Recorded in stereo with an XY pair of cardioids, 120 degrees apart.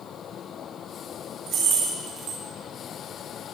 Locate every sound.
1.5 s keys jangling: 65° right, 1.6 m